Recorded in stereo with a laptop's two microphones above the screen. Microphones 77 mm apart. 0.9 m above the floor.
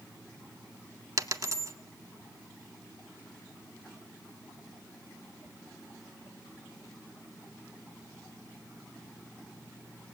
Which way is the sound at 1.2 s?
40° right (ahead or behind).